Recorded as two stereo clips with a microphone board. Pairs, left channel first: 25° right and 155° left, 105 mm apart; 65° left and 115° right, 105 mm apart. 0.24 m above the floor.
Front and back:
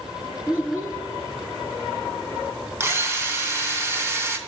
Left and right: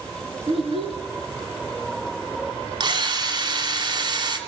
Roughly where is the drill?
Behind right.